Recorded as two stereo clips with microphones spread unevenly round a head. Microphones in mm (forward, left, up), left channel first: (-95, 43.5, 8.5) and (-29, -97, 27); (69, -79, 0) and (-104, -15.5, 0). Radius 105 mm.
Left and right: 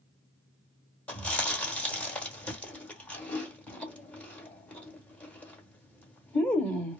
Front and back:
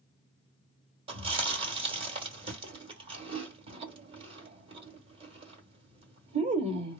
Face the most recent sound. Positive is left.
turn(degrees=-155)